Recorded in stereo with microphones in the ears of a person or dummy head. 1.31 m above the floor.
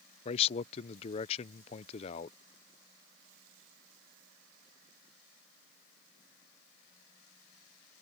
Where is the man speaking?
35° left (ahead or behind).